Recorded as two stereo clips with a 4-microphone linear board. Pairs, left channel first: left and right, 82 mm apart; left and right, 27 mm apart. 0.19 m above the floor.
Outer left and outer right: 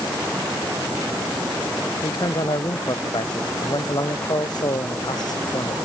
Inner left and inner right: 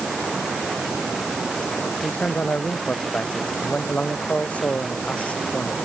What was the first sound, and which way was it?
A man speaking, 65° left (ahead or behind).